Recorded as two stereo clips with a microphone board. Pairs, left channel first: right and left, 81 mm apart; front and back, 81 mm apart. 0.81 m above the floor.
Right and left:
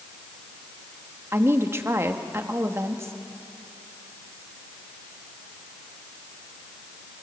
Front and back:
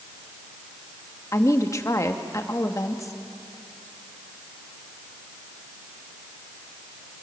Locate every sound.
1.3 s a woman speaking: 40° left, 1.3 m